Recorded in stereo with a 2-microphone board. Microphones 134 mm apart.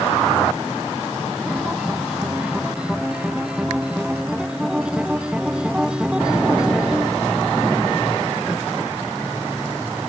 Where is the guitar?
5° right (ahead or behind).